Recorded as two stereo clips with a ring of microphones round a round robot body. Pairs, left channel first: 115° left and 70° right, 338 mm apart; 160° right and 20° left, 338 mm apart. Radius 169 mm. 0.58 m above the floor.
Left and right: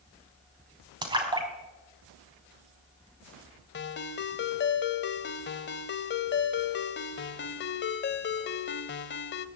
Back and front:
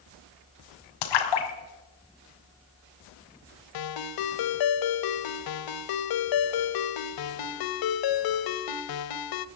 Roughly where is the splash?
Behind right.